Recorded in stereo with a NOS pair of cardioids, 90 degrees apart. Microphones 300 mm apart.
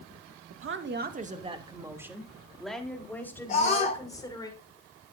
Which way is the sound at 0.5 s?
50° right.